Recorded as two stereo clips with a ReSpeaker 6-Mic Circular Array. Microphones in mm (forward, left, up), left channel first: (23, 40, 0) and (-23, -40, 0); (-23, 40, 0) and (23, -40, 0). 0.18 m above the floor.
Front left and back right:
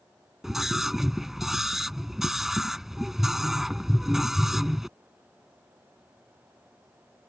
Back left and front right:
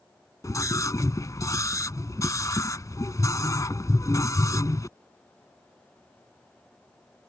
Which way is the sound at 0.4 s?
155° left.